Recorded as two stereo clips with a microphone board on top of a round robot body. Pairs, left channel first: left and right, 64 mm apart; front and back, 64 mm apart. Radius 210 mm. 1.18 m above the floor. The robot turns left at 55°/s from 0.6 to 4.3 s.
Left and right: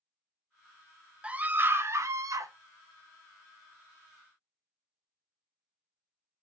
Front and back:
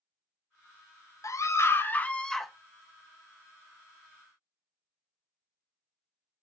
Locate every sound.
1.2 s a scream: 20° right, 0.6 m; by 2.5 s 90° right, 0.6 m